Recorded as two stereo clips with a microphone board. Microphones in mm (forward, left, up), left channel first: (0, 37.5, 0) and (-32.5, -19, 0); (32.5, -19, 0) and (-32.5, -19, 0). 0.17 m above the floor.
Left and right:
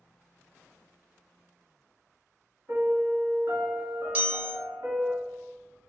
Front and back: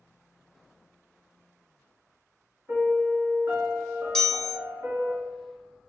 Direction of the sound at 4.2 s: 70° right.